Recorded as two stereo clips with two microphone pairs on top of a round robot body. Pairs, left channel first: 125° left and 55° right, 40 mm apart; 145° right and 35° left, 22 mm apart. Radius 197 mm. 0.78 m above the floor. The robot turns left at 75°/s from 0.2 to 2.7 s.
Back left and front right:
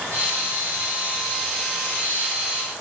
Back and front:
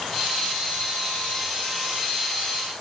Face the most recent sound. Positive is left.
No sound to turn to.